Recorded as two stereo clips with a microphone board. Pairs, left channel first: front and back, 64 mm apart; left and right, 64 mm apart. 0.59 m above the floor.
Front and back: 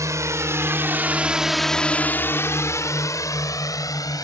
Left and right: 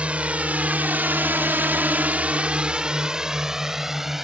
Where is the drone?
160° right; by 4.2 s 5° right.